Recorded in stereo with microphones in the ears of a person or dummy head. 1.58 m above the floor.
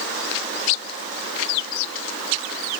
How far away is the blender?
I don't hear a blender.